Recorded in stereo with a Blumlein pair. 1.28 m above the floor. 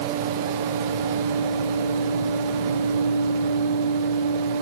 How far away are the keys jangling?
I don't hear keys jangling.